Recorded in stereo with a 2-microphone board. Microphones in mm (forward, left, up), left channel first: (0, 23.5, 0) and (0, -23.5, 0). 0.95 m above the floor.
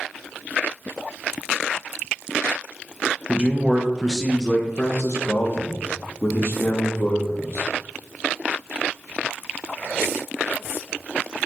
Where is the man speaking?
35° right (ahead or behind), 1.0 m; by 7.7 s 70° left (ahead or behind), 2.5 m.